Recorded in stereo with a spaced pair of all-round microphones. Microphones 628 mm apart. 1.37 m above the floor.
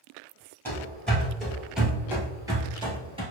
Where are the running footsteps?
5° left (ahead or behind), 1.7 m; by 3.2 s 10° right (ahead or behind), 1.3 m.